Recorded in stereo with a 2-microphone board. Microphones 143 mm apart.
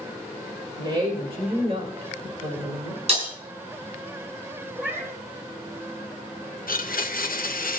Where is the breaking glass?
45° right (ahead or behind), 4.5 m.